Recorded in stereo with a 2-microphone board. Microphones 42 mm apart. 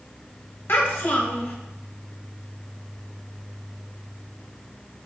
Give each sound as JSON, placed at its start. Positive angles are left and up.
{"t": 0.7, "sound": "a child speaking", "side_deg": 65, "distance_m": 1.2}